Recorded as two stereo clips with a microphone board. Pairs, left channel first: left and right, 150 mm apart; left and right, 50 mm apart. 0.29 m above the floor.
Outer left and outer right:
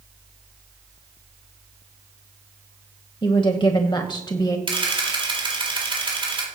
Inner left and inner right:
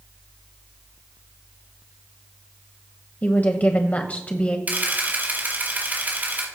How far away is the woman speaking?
About 1.4 m.